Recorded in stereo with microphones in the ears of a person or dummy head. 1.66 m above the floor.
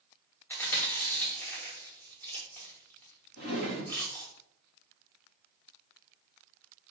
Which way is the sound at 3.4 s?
65° left (ahead or behind).